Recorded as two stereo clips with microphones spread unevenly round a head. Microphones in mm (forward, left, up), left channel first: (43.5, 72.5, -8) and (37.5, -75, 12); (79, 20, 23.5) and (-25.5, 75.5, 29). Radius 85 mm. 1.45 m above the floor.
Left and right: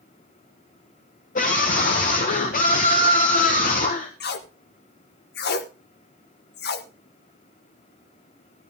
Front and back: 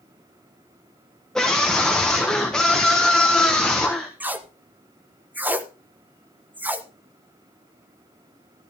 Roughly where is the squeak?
No squeak in this recording.